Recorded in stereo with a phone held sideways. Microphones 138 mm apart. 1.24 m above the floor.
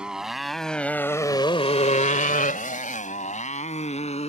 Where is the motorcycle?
5° right (ahead or behind); by 4.3 s 50° left (ahead or behind).